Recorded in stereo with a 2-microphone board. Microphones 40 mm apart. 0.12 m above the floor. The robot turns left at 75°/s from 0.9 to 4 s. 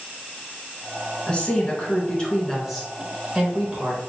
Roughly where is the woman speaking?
Left.